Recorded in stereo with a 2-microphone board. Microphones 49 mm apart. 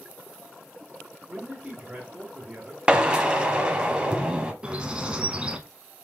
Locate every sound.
1.3 s a man speaking: 10° right (ahead or behind), 2 m
2.9 s a drill: 20° right (ahead or behind), 0.8 m
4.6 s a bird: 20° right (ahead or behind), 0.6 m